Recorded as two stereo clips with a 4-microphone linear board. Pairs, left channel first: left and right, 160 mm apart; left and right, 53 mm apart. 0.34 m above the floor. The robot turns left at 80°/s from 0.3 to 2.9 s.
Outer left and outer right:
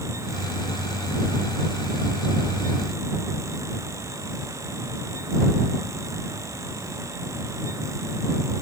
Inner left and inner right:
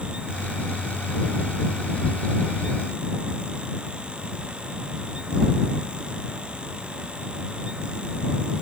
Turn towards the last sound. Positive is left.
No sound to turn to.